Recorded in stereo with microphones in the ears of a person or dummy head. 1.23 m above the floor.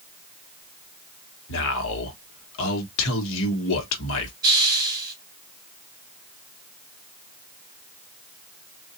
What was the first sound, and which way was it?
A man speaking, 70° left (ahead or behind).